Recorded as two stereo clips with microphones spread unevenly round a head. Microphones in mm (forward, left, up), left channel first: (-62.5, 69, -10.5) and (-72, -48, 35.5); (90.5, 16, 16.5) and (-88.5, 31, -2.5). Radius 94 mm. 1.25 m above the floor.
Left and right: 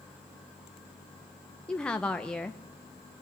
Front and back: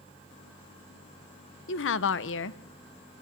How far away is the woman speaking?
About 1.0 m.